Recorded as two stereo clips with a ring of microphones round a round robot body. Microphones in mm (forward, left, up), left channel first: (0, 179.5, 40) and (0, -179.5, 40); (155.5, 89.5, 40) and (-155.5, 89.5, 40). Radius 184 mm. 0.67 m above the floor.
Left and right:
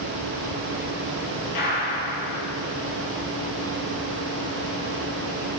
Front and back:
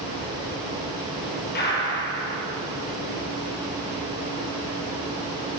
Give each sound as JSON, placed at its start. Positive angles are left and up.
{"t": 1.6, "sound": "a gunshot", "azimuth_deg": 60, "distance_m": 9.0}